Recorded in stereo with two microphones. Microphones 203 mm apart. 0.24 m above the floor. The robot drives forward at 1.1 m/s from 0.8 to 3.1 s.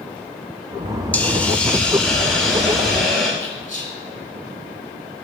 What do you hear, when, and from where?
1.1 s a hiss: 5° left (ahead or behind), 0.8 m; by 3.3 s centre (ahead or behind), 2.5 m
3.4 s whispering: 35° left (ahead or behind), 1.6 m